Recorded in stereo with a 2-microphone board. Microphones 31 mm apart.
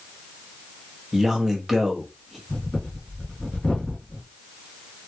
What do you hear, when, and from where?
1.1 s a man speaking: 10° right (ahead or behind), 0.9 m
2.5 s breathing: 45° left (ahead or behind), 2 m